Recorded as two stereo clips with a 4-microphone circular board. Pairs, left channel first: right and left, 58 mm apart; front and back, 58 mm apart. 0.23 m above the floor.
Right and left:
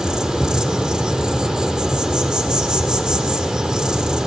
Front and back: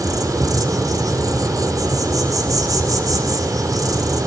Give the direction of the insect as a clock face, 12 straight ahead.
6 o'clock.